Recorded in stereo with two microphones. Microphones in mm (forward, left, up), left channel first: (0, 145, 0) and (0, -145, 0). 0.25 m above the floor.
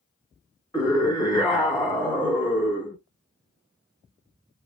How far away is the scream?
About 2 m.